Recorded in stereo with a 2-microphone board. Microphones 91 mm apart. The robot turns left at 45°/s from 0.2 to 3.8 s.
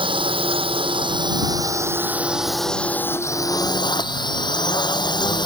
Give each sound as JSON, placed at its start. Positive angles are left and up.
{"t": 0.0, "sound": "a drone", "azimuth_deg": -75}